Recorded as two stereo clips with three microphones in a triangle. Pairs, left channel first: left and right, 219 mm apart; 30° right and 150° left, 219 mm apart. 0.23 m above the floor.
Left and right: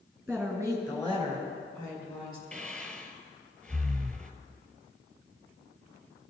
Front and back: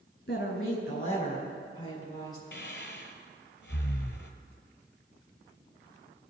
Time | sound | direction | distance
0.3 | a woman speaking | 5° left | 2 m
2.5 | breathing | 5° left | 1.0 m